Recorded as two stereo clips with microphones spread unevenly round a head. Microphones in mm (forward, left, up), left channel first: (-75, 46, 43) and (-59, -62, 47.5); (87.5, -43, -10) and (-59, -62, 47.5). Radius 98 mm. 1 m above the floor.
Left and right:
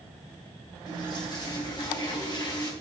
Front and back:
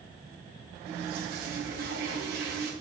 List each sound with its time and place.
0.9 s a toilet flushing: 145° left, 2 m